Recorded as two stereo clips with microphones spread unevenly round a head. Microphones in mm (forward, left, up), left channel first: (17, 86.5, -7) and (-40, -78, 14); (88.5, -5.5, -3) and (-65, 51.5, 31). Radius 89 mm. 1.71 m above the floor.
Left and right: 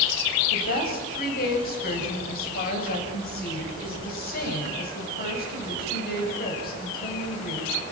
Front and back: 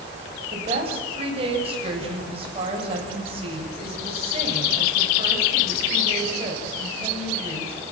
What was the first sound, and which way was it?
A woman speaking, 105° left.